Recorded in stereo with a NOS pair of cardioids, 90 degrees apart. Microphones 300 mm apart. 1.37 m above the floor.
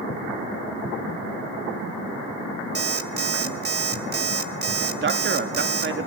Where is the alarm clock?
35° right, 1.6 m.